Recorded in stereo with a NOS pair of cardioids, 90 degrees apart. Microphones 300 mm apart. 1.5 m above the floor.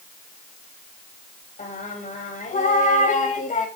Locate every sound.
1.6 s singing: 25° left, 3 m